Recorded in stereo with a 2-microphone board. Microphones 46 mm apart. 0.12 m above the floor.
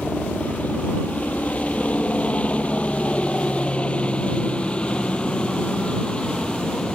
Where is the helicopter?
35° left (ahead or behind); by 7.0 s 20° left (ahead or behind).